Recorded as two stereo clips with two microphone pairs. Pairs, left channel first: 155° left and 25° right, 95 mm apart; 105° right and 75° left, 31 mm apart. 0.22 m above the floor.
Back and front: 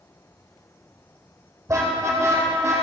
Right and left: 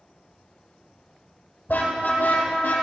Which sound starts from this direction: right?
A car horn, at 1.7 s.